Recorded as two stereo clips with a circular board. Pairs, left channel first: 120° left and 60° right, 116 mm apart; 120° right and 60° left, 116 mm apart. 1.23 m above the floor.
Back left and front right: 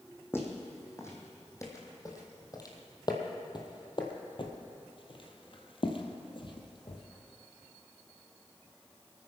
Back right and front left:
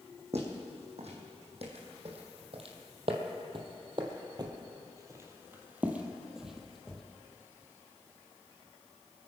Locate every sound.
0.3 s footsteps: 50° left, 3.5 m; by 7.0 s 155° left, 2 m